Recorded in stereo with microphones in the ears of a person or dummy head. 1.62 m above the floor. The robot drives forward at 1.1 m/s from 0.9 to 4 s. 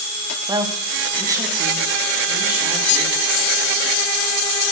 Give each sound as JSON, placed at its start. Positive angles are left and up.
{"t": 0.5, "sound": "a woman speaking", "side_deg": -20, "distance_m": 1.6}